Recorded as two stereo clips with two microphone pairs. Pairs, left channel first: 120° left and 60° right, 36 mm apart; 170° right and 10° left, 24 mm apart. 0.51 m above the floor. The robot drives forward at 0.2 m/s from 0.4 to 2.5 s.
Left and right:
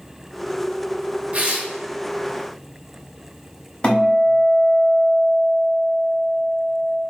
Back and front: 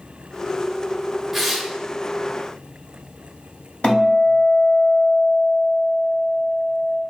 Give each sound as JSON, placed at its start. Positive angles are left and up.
{"t": 1.3, "sound": "tearing paper", "azimuth_deg": -70, "distance_m": 0.9}
{"t": 3.8, "sound": "a guitar", "azimuth_deg": 175, "distance_m": 2.0}